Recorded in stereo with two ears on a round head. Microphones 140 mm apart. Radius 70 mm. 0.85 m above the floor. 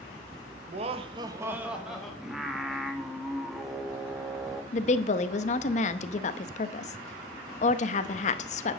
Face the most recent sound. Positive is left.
turn(degrees=45)  # may be behind; listen again after turning